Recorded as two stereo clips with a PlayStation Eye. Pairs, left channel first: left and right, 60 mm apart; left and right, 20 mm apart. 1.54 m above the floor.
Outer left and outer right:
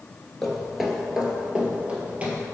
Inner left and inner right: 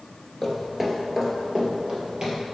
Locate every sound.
0.4 s footsteps: 5° left (ahead or behind), 1.7 m; by 2.4 s 25° right (ahead or behind), 2.5 m